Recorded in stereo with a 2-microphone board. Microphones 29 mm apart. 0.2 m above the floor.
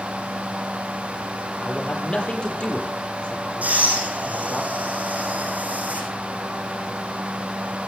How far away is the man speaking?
About 6.5 m.